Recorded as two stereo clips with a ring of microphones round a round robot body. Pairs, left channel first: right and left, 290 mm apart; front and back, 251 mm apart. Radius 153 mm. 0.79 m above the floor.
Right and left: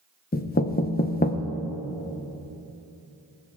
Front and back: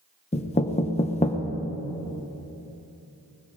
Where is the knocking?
50° right, 0.8 m.